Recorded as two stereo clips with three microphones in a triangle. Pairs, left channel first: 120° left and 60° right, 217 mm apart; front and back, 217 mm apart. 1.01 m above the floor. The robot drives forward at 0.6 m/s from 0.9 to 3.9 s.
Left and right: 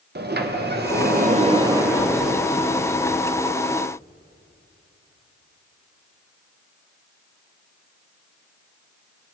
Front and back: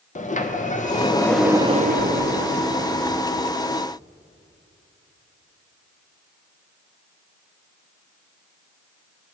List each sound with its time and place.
0.1 s a sliding door: 45° right, 0.5 m; by 3.5 s 165° right, 1.4 m